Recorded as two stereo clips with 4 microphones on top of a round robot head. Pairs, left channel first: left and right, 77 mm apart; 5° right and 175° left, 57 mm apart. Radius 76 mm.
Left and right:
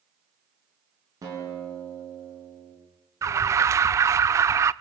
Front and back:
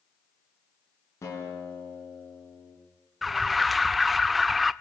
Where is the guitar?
40° right, 7.5 m.